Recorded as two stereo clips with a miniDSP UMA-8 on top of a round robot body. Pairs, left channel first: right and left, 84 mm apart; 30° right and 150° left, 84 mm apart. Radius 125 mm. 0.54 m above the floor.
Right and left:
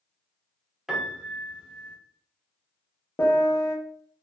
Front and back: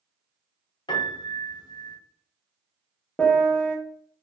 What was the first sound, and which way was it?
A piano, 5° left.